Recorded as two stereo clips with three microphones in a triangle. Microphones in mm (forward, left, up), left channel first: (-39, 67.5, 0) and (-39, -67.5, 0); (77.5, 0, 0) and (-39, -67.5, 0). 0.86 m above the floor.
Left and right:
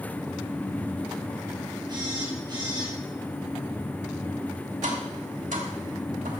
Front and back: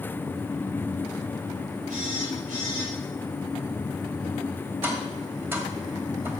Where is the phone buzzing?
150° right, 3.5 m.